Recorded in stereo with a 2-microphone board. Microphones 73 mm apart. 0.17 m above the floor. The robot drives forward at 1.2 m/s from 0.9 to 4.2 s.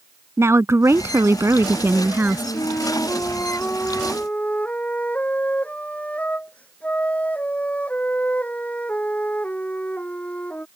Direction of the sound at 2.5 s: 55° left (ahead or behind).